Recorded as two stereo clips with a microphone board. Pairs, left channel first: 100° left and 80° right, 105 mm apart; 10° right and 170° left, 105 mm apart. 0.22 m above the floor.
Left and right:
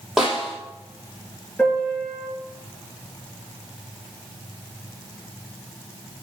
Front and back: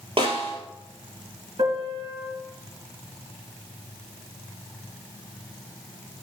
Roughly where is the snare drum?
Behind.